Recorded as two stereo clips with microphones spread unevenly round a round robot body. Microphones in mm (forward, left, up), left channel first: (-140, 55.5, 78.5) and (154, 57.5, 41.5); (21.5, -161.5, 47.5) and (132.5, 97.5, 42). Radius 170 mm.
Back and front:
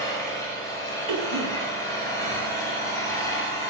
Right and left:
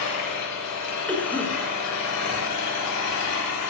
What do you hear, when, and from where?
0.0 s an engine running: 100° right, 9 m
1.1 s a cough: 30° right, 8.5 m